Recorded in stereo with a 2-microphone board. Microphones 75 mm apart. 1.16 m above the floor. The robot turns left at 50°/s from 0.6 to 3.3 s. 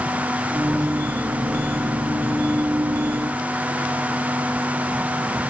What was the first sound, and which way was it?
Only background noise.